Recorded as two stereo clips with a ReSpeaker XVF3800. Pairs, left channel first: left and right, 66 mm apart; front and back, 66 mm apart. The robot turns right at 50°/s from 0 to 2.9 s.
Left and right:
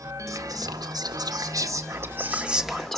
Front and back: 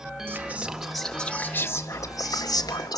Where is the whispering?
125° right, 1.9 m; by 3.0 s 5° left, 1.9 m.